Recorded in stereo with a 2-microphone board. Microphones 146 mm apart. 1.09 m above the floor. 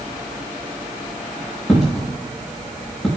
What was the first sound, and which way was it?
A dropped coin, centre (ahead or behind).